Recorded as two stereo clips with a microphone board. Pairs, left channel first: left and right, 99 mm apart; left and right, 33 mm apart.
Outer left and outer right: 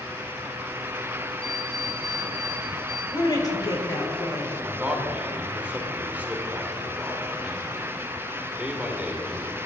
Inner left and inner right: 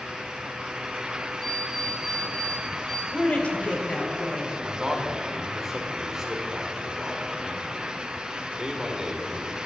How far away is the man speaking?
About 2 m.